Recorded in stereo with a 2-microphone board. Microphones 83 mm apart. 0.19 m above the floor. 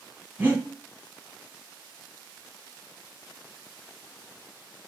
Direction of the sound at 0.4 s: 20° right (ahead or behind).